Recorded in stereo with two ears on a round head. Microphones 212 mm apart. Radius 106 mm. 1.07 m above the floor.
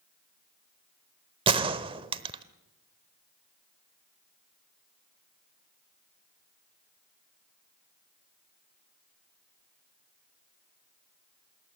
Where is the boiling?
I don't hear boiling.